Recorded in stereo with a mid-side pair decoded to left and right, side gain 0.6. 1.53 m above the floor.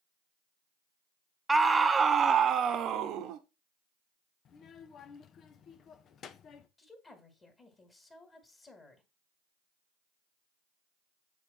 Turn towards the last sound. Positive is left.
turn(degrees=25)